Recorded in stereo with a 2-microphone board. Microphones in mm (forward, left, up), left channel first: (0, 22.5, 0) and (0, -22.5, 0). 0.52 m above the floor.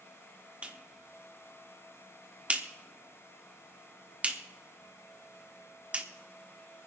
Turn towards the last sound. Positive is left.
turn(degrees=-25)  # may be behind; listen again after turning